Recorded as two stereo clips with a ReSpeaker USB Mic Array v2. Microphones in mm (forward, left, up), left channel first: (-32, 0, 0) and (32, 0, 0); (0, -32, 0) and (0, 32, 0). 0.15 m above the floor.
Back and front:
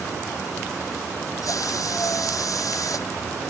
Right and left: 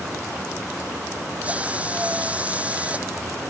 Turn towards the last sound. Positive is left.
turn(degrees=160)